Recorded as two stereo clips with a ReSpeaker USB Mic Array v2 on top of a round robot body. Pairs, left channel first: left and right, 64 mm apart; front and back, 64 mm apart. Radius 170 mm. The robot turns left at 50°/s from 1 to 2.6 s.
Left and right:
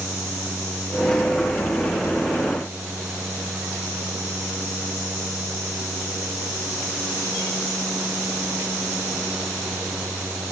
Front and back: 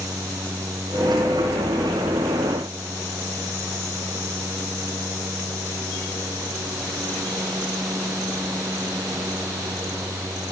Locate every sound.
Only background noise.